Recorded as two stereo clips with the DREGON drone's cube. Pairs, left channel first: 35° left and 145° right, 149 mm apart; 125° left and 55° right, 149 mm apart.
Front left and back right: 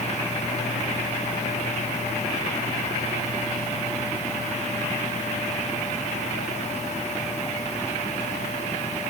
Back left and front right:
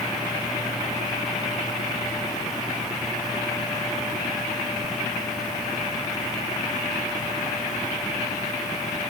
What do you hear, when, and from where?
Only background noise.